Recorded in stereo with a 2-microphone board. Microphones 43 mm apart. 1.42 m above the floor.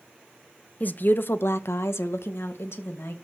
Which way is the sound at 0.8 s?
40° left (ahead or behind).